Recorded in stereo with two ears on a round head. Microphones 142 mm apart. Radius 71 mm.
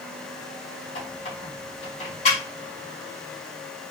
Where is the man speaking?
I don't hear a man speaking.